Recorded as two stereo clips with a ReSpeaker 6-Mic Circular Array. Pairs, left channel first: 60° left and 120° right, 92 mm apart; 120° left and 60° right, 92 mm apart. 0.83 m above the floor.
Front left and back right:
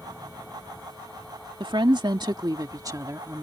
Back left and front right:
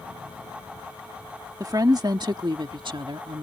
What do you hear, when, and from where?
1.6 s a woman speaking: 100° right; by 3.4 s 65° right